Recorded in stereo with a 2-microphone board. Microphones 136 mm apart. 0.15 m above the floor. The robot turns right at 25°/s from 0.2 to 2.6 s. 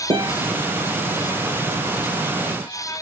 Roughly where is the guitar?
Right.